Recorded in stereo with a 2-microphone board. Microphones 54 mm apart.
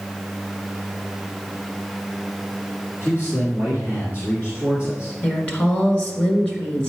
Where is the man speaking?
40° left (ahead or behind), 2 m.